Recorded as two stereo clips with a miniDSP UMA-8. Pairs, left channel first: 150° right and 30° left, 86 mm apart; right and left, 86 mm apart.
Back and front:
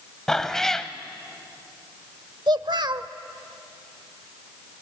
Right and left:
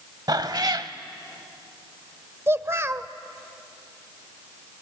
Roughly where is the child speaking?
Ahead left.